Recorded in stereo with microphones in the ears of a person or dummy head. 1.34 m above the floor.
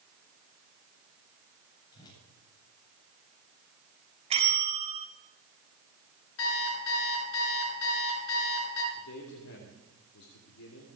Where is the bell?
35° right (ahead or behind), 2 m.